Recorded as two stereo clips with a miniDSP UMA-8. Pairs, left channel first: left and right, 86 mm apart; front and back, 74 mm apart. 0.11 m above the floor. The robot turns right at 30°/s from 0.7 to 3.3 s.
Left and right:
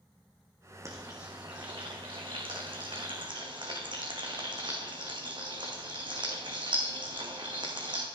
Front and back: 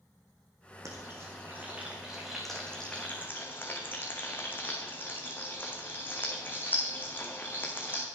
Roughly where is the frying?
Behind right.